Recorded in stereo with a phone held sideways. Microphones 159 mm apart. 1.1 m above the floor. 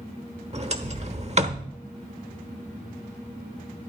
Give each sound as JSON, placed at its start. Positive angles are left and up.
{"t": 0.5, "sound": "a sliding door", "side_deg": -45, "distance_m": 1.0}